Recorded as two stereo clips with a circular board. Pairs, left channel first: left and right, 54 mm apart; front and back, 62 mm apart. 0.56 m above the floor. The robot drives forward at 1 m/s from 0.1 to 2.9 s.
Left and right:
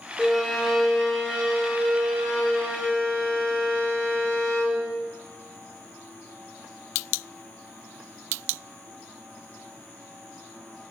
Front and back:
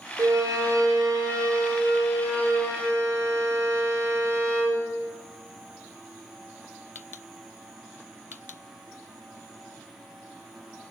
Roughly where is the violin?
Behind.